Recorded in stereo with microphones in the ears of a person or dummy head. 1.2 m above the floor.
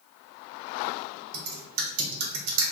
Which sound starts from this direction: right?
Typing on a keyboard, at 1.3 s.